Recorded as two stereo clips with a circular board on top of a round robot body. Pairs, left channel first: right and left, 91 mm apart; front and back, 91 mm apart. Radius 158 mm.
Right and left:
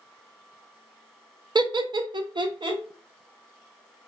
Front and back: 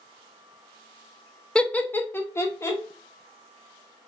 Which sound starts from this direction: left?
Laughter, at 1.6 s.